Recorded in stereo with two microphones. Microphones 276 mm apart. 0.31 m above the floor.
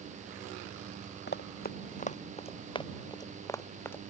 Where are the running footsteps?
35° left (ahead or behind); by 4.0 s 5° left (ahead or behind).